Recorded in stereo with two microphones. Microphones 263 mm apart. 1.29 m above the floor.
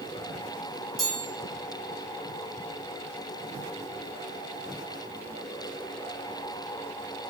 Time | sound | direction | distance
1.0 | a chime | 60° right (ahead or behind) | 3 m